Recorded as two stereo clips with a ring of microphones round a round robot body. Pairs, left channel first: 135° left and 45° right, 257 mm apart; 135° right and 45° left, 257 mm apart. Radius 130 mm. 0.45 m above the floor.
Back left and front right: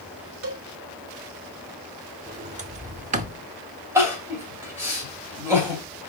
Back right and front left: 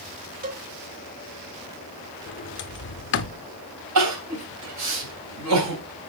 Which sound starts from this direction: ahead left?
Crying, at 4.0 s.